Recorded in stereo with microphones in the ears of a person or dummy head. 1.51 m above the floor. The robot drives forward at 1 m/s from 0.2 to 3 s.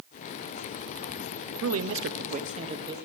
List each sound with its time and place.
1.6 s a man speaking: 70° right (ahead or behind), 0.6 m; by 3.0 s 25° right (ahead or behind), 1.3 m